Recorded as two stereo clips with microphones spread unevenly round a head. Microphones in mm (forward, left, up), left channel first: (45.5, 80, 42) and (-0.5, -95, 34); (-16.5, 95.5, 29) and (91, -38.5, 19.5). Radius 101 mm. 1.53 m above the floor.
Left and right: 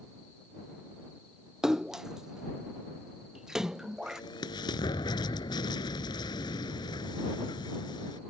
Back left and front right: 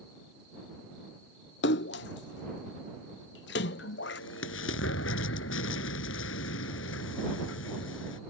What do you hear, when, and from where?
1.6 s a splash: 165° left
4.0 s an explosion: 145° left